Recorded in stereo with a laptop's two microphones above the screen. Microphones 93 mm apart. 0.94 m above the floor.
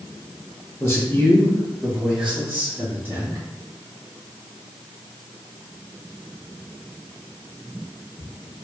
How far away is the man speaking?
About 1.1 m.